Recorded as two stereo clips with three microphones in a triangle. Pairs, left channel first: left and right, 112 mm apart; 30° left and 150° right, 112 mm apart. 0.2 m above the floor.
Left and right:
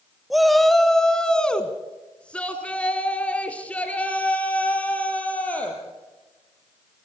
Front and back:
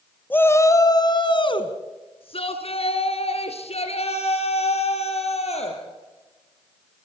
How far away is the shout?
About 1.2 m.